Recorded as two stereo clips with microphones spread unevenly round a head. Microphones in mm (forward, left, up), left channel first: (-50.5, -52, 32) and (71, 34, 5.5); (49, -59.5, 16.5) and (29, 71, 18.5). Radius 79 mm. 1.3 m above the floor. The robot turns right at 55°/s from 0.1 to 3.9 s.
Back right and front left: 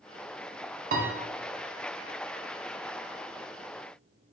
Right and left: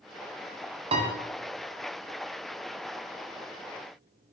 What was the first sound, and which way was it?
A piano, 55° left.